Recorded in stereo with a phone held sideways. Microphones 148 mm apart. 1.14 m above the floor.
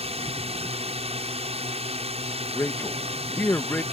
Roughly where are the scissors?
No scissors in this recording.